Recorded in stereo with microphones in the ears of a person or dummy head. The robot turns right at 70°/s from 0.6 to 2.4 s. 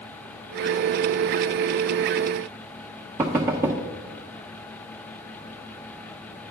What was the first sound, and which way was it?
Knocking, 15° right (ahead or behind).